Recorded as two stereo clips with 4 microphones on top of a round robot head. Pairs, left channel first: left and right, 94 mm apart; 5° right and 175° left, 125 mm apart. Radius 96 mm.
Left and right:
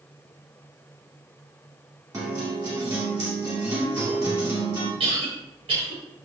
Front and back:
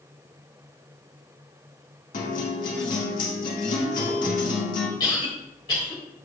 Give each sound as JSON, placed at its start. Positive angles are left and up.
{"t": 2.1, "sound": "a guitar", "azimuth_deg": -25, "distance_m": 1.9}
{"t": 5.0, "sound": "a cough", "azimuth_deg": -65, "distance_m": 3.5}